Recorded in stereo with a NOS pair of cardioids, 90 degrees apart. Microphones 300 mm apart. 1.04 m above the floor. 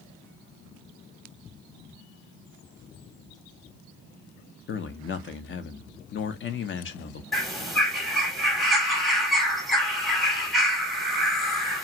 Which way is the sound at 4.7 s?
40° left.